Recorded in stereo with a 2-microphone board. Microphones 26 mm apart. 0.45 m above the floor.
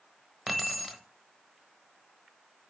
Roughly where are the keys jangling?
Centre.